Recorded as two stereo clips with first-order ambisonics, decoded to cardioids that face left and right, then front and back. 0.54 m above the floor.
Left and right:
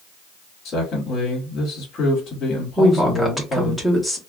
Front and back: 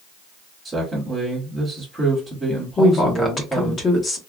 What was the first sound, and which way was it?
A man speaking, 110° left.